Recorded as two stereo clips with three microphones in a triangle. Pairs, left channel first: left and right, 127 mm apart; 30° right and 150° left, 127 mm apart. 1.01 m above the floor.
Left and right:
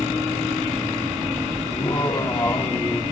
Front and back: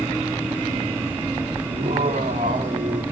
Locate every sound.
1.7 s laughter: 145° left, 1.9 m; by 3.0 s 170° left, 1.7 m